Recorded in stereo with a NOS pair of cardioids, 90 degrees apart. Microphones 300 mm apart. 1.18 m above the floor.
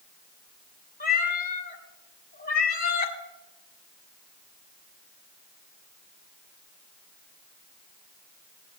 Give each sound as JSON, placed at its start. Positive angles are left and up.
{"t": 1.0, "sound": "a cat meowing", "azimuth_deg": 30, "distance_m": 2.0}